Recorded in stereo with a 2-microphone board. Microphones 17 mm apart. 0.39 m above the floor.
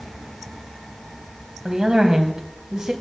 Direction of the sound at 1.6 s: 45° right (ahead or behind).